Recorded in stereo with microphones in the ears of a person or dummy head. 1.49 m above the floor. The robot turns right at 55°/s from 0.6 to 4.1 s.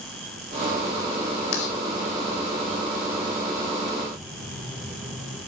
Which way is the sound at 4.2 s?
5° right (ahead or behind).